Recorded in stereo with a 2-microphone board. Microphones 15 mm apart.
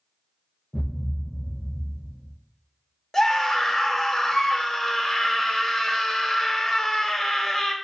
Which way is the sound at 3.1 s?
20° left (ahead or behind).